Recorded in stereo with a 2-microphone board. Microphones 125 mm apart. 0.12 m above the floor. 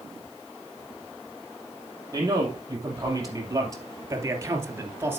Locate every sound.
2.1 s a man speaking: 30° right (ahead or behind), 4 m; by 5.2 s 15° right (ahead or behind), 1.5 m